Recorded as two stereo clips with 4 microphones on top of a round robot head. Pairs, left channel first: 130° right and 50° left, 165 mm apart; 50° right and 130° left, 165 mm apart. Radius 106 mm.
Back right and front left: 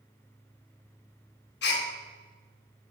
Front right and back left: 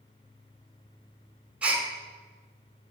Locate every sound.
1.6 s a gasp: 145° right, 1.6 m